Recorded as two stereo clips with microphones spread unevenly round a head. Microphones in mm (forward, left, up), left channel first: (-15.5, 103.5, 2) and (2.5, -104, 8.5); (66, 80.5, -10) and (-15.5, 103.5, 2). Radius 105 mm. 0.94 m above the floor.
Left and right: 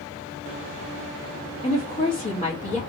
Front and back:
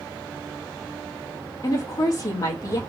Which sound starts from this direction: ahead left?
A woman speaking, at 1.6 s.